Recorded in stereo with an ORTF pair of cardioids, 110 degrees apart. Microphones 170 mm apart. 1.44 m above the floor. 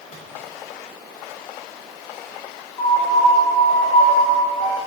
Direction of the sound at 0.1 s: 50° left.